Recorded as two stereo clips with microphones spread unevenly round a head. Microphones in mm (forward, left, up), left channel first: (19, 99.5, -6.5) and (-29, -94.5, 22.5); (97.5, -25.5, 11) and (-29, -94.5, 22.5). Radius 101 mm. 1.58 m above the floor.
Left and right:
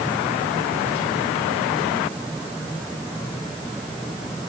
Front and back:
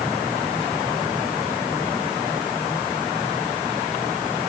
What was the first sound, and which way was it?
Only background noise.